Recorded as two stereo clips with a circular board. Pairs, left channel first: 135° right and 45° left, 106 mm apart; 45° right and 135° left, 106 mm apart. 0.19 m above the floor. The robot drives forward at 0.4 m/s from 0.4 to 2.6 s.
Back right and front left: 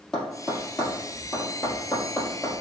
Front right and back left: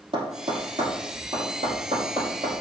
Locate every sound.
0.1 s tapping: 145° left, 3.5 m; by 2.6 s 150° left, 4 m